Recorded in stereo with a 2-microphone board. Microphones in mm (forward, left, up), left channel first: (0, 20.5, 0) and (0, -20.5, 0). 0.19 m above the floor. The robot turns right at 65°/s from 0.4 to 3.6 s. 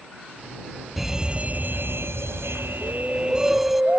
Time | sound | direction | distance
1.0 | a fire alarm | 175° right | ?
2.8 | a shout | 160° left | ?